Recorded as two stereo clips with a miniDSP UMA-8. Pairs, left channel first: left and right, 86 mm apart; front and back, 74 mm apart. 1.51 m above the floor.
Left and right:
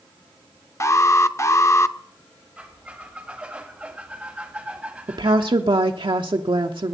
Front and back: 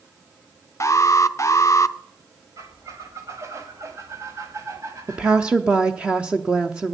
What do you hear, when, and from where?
0.8 s an alarm: 40° left, 0.5 m
2.6 s a squeak: 165° right, 1.7 m
5.1 s a woman speaking: 105° right, 0.7 m